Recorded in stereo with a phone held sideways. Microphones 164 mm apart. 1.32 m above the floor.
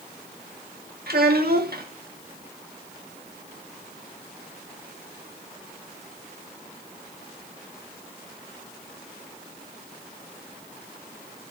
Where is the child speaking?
70° right (ahead or behind), 1.9 m.